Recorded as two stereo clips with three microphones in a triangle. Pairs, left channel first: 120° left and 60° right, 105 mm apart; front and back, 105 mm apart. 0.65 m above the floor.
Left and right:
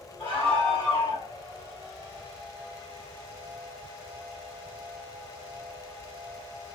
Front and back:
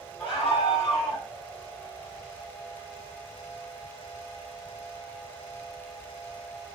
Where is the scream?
70° left, 3 m; by 1.3 s 65° left, 3.5 m.